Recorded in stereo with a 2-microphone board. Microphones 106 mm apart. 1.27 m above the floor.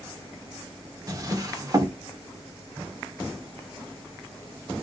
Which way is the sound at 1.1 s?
35° right (ahead or behind).